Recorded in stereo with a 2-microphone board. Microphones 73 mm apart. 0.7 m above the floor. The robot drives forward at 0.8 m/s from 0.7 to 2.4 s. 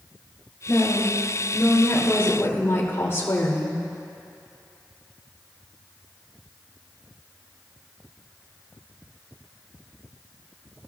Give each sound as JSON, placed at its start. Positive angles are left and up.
{"t": 0.7, "sound": "a woman speaking", "side_deg": 25, "distance_m": 3.5}